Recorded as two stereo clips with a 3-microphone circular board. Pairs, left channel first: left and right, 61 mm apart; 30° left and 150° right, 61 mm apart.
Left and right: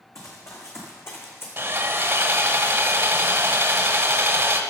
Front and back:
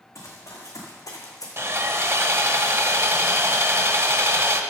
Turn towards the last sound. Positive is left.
turn(degrees=-125)